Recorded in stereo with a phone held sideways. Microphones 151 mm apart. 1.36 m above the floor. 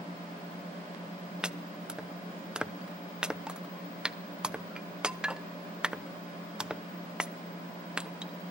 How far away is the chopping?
About 0.7 m.